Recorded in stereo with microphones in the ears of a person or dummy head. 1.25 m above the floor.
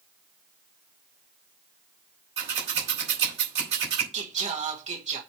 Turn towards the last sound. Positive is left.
turn(degrees=-40)  # may be behind; listen again after turning